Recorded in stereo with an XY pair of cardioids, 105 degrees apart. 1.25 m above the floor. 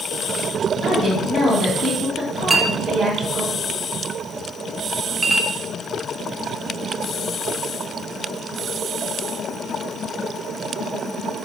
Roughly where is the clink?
Ahead.